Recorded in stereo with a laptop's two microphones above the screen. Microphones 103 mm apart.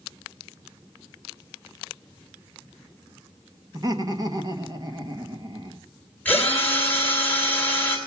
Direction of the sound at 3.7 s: 35° right (ahead or behind).